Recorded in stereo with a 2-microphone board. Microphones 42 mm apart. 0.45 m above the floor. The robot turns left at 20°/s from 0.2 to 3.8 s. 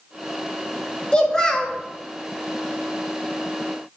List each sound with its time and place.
1.1 s a child speaking: 20° left (ahead or behind), 0.7 m; by 1.8 s 10° left (ahead or behind), 0.7 m